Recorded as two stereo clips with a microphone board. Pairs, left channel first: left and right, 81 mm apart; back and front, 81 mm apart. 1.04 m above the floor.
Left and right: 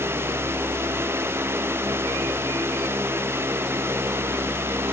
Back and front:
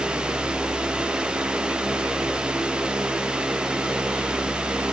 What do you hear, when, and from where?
Only background noise.